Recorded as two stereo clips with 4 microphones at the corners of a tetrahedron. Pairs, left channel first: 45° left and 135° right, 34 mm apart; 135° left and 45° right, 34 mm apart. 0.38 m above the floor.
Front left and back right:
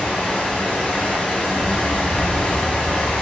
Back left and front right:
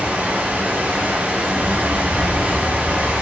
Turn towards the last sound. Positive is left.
turn(degrees=-5)